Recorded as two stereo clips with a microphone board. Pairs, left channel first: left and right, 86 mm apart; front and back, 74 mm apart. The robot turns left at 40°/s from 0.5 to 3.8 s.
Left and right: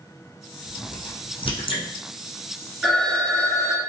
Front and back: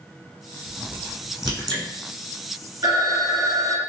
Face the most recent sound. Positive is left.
turn(degrees=140)